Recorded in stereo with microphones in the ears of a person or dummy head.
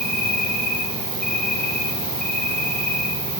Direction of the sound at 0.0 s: Centre (ahead or behind).